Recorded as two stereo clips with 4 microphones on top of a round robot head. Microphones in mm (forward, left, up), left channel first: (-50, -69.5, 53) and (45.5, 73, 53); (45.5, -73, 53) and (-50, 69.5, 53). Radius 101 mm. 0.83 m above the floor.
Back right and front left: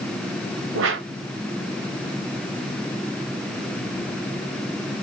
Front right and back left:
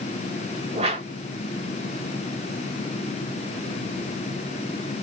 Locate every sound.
0.7 s a whoosh: 65° left, 1.4 m